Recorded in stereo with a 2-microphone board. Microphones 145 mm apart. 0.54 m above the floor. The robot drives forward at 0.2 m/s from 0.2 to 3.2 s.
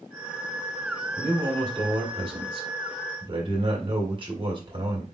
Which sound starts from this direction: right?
A man speaking, at 1.2 s.